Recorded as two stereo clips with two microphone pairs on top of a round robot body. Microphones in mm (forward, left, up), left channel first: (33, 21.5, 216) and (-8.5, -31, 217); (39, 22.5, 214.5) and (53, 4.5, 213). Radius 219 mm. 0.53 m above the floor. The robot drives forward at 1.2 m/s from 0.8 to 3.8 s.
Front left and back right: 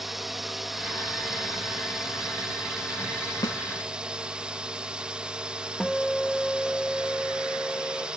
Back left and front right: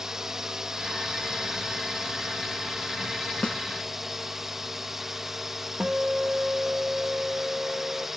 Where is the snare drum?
75° left; by 3.6 s 80° left.